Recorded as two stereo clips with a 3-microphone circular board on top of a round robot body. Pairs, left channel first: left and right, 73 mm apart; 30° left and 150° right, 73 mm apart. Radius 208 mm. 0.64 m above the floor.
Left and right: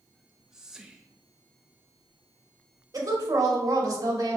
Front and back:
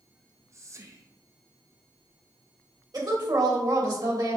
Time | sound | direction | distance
0.1 | whispering | 170° right | 1.0 m
2.9 | a woman speaking | 125° right | 3 m